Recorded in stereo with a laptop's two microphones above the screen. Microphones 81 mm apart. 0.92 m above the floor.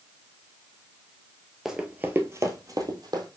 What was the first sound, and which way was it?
Running footsteps, 5° right (ahead or behind).